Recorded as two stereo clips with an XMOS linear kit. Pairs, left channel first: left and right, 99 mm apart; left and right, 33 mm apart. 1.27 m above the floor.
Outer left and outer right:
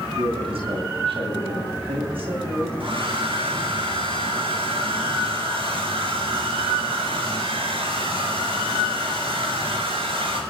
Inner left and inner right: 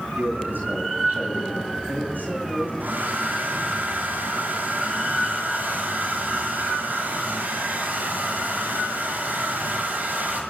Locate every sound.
0.1 s a man speaking: 80° right, 8 m
2.8 s a hair dryer: 80° right, 5.5 m